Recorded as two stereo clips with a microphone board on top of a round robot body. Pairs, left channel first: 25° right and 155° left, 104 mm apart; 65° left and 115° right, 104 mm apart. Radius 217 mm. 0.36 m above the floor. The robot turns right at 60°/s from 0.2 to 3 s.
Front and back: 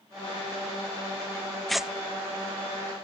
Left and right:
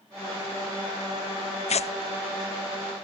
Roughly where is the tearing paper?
Ahead left.